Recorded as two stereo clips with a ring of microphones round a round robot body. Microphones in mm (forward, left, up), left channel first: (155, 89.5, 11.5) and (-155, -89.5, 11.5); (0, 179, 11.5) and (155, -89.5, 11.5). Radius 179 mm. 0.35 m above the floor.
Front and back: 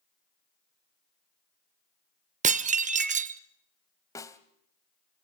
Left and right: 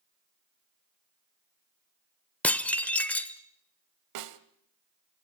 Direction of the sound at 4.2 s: 50° right.